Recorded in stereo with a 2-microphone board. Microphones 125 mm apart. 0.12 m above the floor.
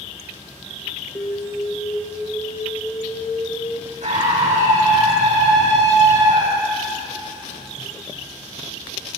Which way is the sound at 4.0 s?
75° right (ahead or behind).